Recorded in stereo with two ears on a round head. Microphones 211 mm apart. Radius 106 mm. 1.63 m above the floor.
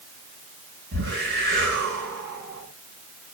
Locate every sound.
0.9 s a whoosh: 55° right (ahead or behind), 8 m